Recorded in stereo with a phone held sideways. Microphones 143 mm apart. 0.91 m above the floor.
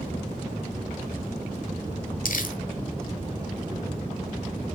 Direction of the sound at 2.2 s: 70° left (ahead or behind).